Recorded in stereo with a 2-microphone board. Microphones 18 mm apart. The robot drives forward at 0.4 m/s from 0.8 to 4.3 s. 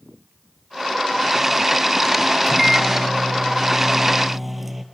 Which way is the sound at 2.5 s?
5° right (ahead or behind).